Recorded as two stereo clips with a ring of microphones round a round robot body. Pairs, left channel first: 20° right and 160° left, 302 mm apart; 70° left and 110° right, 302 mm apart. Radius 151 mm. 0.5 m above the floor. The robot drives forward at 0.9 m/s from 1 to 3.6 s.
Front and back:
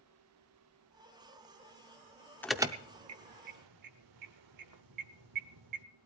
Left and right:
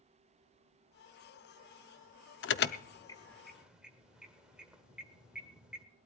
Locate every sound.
2.4 s an alarm: 60° left, 0.6 m; by 5.8 s 160° left, 1.0 m